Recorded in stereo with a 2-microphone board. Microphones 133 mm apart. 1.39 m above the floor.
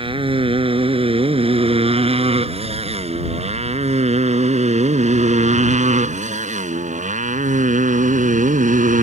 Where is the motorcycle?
45° right (ahead or behind); by 9.0 s 80° right.